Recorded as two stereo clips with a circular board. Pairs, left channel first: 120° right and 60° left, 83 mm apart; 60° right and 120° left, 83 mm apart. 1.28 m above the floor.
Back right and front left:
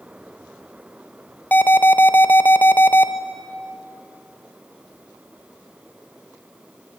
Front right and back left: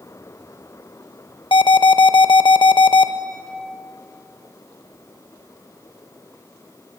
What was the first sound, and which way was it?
An alarm, 50° right.